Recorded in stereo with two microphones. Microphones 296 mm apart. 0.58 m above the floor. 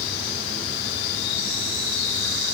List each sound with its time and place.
Only background noise.